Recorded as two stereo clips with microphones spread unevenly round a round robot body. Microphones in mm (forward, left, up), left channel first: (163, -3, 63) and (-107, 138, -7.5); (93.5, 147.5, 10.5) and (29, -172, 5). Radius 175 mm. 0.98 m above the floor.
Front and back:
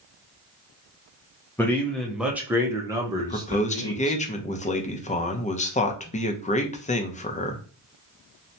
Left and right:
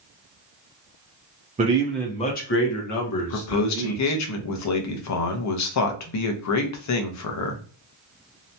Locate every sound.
1.6 s a man speaking: 130° right, 0.6 m; by 4.2 s 80° left, 1.5 m
3.2 s a man speaking: 45° left, 0.7 m